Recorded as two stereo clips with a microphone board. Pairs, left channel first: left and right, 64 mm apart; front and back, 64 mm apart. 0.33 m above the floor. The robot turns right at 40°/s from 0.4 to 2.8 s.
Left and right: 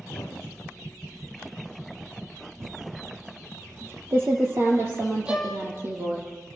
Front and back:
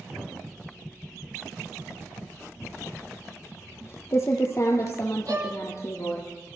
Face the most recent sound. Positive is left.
turn(degrees=-160)